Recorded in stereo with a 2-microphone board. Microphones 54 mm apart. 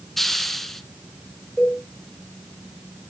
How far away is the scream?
I don't hear a scream.